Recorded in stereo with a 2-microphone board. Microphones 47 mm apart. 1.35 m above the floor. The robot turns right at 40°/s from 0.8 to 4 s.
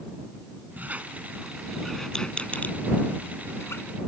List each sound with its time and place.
0.8 s a squeak: 35° right (ahead or behind); by 3.8 s 70° left (ahead or behind)